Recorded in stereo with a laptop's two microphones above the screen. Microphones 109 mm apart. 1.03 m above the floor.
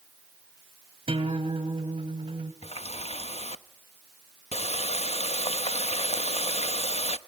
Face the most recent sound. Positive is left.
turn(degrees=70)  # may be behind; listen again after turning